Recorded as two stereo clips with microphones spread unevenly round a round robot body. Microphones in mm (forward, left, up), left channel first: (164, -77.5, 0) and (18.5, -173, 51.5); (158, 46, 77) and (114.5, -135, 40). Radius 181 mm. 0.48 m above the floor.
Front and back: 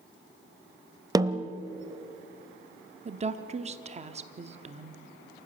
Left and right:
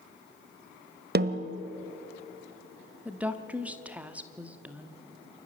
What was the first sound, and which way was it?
A snare drum, 75° right.